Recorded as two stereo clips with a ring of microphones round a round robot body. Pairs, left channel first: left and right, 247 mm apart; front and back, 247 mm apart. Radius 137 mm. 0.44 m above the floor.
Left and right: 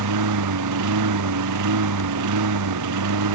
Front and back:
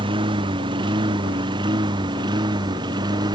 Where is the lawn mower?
105° right.